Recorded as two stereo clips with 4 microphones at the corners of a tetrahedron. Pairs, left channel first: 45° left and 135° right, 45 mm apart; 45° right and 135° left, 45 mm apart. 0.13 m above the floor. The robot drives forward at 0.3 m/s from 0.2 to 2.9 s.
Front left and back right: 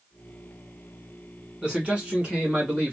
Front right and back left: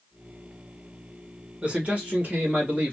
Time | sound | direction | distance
1.6 | a man speaking | 175° left | 1.5 m